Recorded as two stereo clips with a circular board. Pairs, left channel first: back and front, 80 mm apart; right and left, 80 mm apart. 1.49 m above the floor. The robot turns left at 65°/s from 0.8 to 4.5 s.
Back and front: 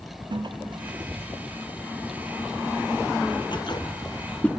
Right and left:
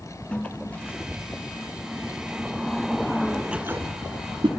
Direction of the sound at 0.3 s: 15° right.